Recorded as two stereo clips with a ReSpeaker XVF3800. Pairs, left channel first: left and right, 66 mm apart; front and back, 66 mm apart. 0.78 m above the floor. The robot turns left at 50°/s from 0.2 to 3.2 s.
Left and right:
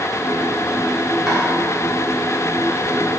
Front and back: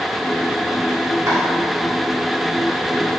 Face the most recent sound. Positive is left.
turn(degrees=80)